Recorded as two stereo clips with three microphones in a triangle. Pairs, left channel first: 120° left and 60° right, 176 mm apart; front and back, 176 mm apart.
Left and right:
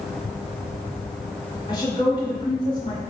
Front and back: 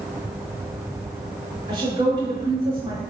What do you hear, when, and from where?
1.7 s a woman speaking: 150° left, 1.1 m